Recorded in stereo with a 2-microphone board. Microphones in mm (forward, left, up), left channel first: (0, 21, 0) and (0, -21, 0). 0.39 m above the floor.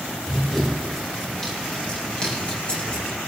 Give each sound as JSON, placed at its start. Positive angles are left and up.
{"t": 0.2, "sound": "running footsteps", "side_deg": 5, "distance_m": 7.5}